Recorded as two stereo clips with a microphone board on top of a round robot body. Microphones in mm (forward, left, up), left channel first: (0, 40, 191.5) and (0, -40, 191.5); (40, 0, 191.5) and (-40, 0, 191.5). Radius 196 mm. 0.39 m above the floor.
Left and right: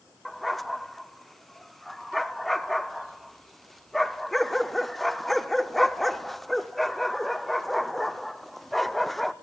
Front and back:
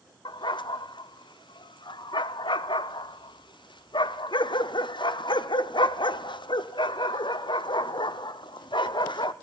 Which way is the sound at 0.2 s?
Straight ahead.